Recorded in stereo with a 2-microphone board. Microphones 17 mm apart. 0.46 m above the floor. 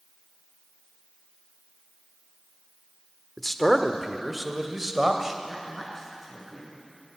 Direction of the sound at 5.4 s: 5° left (ahead or behind).